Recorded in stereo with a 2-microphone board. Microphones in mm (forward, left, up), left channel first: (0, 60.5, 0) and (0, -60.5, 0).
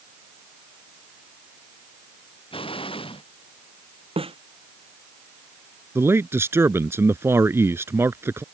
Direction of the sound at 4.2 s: 50° right (ahead or behind).